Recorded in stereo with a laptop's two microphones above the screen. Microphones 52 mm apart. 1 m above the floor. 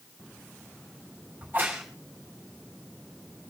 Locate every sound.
1.4 s a crack: 35° right (ahead or behind), 4.5 m